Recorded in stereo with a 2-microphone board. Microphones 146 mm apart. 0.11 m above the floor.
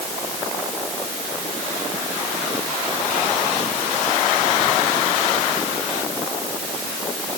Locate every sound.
Only background noise.